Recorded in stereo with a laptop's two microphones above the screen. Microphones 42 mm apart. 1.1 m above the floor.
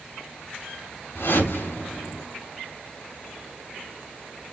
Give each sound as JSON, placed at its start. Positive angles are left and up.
{"t": 1.1, "sound": "a whoosh", "side_deg": 85, "distance_m": 4.0}